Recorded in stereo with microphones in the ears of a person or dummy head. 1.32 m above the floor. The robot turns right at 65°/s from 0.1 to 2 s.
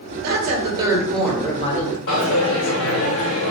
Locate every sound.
0.2 s a woman speaking: 60° right, 1.3 m; by 2.0 s 50° left, 1.3 m
2.1 s a dropped coin: 60° left (ahead or behind), 1.7 m